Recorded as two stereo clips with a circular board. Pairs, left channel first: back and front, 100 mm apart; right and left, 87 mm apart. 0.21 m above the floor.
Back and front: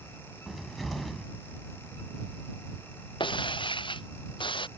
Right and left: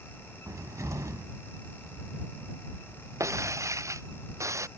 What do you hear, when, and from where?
0.5 s a cupboard door: 90° left
3.2 s breaking glass: 145° left